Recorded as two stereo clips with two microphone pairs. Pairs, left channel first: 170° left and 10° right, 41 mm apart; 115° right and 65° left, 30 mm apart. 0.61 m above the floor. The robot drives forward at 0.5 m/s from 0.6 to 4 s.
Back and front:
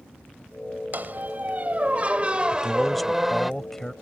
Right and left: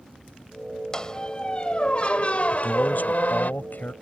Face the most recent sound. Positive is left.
turn(degrees=-110)